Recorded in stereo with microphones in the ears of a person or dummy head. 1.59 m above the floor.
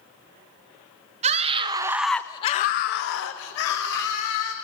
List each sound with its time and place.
1.2 s a scream: 35° right (ahead or behind), 1.1 m; by 4.5 s 70° left (ahead or behind), 2 m